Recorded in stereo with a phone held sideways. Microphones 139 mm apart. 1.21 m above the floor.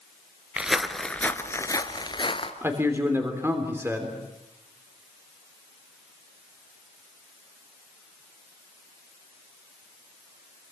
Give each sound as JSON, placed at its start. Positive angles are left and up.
{"t": 0.6, "sound": "footsteps", "side_deg": -5, "distance_m": 1.3}
{"t": 2.6, "sound": "a man speaking", "side_deg": -15, "distance_m": 3.0}